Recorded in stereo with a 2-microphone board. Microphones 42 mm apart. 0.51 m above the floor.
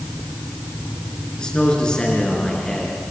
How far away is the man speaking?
About 6 m.